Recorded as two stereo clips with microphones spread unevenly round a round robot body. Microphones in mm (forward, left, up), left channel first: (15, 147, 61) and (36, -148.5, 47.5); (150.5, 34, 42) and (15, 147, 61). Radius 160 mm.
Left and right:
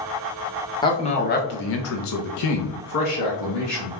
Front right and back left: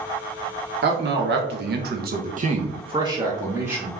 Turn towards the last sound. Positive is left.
turn(degrees=60)